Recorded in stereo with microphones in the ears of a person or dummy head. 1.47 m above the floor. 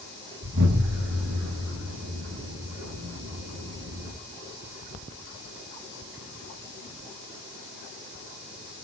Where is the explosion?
55° right (ahead or behind), 5.5 m.